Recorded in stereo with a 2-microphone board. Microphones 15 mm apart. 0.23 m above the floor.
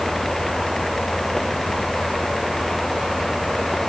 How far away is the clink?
I don't hear a clink.